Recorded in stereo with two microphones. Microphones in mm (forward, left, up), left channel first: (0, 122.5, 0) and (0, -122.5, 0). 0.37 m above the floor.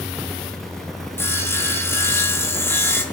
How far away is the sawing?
About 0.6 m.